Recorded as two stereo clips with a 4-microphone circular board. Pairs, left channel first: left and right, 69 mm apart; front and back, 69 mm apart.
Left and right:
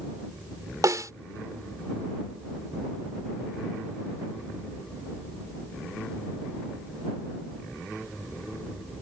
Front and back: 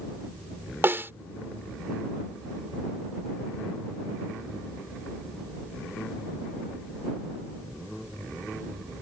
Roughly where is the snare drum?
Behind right.